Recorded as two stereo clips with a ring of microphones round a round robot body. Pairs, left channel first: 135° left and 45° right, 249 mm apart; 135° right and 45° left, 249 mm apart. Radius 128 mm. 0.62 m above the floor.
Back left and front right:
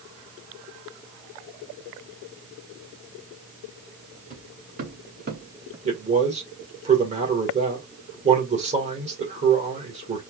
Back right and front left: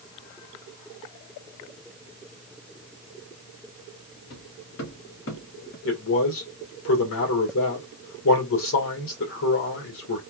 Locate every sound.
4.3 s footsteps: 105° right, 3 m; by 5.8 s 85° right, 2.0 m
5.8 s a man speaking: 105° right, 2.5 m